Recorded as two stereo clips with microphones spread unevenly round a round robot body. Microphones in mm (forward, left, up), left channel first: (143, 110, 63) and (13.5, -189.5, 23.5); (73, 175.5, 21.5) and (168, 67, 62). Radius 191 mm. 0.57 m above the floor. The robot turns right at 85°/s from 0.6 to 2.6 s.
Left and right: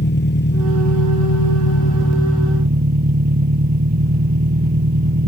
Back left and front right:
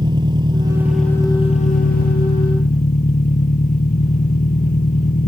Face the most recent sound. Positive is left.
turn(degrees=180)